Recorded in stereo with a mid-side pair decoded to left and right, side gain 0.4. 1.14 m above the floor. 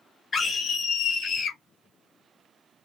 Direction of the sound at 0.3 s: 45° left.